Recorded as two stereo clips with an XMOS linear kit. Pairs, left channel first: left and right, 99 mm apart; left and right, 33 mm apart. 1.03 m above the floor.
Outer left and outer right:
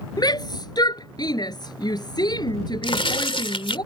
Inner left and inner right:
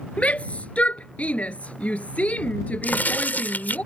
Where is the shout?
45° left (ahead or behind).